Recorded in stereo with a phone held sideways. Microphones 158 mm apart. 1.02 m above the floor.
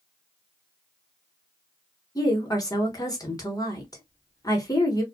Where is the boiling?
No boiling in this recording.